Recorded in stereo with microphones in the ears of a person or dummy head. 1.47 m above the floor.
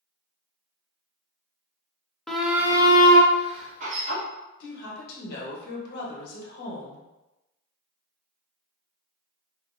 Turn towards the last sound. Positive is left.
turn(degrees=65)  # may be behind; listen again after turning